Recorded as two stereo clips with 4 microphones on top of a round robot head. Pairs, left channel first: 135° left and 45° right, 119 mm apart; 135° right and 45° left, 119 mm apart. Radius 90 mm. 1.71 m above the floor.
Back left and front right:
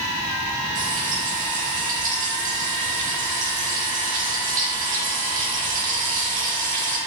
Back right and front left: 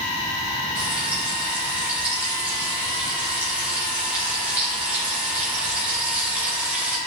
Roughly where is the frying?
Ahead right.